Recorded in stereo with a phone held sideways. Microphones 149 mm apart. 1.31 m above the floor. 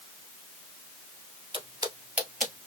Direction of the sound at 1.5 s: 35° right (ahead or behind).